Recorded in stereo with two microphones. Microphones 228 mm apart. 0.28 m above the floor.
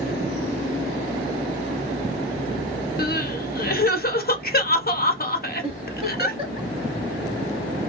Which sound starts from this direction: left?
Crying, at 3.0 s.